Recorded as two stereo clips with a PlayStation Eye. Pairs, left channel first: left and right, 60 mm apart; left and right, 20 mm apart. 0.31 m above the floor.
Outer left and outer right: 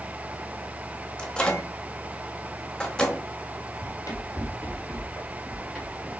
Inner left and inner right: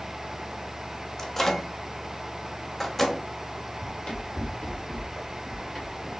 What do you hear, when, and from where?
1.2 s a microwave: 15° left (ahead or behind), 0.8 m
3.8 s running footsteps: 60° left (ahead or behind), 2 m; by 6.1 s centre (ahead or behind), 2 m